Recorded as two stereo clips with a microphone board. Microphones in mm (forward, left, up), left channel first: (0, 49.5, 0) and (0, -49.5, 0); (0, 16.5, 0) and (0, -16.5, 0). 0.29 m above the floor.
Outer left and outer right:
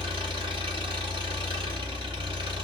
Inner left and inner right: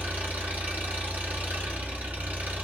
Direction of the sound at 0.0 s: 55° right (ahead or behind).